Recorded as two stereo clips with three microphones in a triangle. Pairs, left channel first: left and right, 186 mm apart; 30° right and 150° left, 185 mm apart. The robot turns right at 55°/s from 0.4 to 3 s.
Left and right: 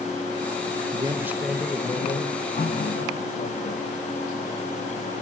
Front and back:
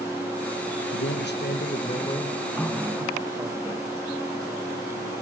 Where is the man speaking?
30° right, 1.6 m; by 3.6 s 85° left, 1.6 m.